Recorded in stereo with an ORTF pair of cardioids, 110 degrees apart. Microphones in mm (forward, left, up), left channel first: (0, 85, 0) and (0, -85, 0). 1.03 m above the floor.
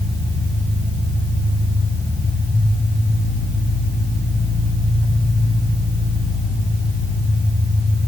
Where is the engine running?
15° left, 4.5 m.